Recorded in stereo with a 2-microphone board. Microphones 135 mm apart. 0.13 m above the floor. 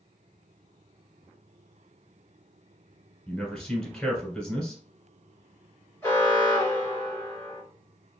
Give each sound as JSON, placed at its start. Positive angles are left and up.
{"t": 3.3, "sound": "a man speaking", "side_deg": 5, "distance_m": 1.6}
{"t": 6.0, "sound": "an alarm", "side_deg": 20, "distance_m": 1.9}